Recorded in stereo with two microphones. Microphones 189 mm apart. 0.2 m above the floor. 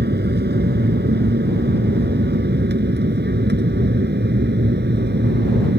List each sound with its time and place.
0.0 s an aircraft: 60° right (ahead or behind)